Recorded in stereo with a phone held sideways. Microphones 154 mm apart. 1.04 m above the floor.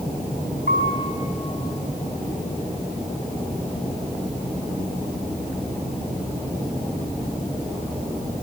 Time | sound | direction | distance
0.7 | a piano | 75° right (ahead or behind) | 5 m